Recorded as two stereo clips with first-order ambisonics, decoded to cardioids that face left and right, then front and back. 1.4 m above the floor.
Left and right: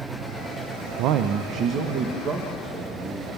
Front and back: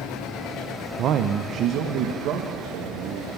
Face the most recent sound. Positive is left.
turn(degrees=-150)